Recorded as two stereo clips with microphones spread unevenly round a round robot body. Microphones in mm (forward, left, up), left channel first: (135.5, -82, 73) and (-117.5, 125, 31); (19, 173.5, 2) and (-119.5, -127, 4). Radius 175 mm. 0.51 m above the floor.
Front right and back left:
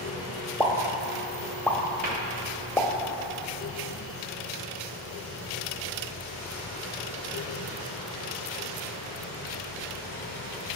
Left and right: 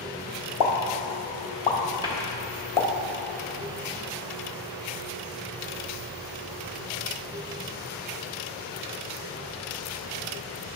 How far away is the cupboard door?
About 1.5 m.